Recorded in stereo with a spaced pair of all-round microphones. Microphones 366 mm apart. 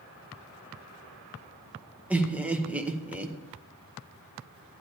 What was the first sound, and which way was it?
Laughter, 5° right (ahead or behind).